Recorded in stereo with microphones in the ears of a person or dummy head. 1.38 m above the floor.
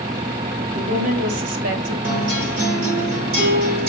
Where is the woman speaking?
75° right (ahead or behind), 3.5 m; by 1.9 s 70° right (ahead or behind), 2.5 m.